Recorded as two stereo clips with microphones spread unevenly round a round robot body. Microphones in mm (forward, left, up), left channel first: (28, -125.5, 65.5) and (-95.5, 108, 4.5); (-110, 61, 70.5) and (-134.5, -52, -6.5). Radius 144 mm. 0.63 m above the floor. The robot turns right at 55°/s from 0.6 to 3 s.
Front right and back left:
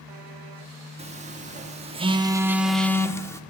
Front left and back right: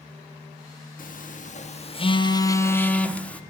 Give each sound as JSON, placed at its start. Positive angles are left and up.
{"t": 1.0, "sound": "a phone buzzing", "azimuth_deg": 95, "distance_m": 1.2}